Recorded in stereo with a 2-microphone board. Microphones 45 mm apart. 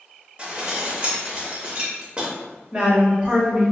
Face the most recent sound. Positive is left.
turn(degrees=-25)  # may be behind; listen again after turning